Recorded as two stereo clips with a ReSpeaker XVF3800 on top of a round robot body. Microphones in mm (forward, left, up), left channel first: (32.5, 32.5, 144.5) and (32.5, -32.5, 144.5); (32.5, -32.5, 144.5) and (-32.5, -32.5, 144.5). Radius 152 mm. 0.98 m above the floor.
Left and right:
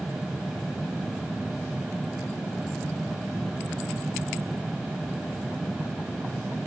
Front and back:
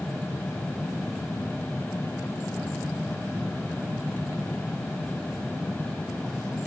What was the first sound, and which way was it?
Only background noise.